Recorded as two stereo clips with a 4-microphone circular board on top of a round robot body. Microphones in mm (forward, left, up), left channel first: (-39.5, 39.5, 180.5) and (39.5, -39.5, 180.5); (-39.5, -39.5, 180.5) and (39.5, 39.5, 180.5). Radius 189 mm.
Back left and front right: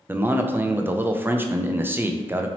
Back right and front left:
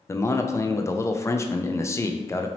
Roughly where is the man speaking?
Right.